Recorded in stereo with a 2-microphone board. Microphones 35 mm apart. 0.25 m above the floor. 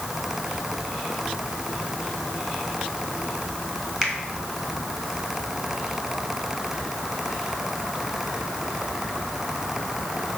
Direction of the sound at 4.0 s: 15° right (ahead or behind).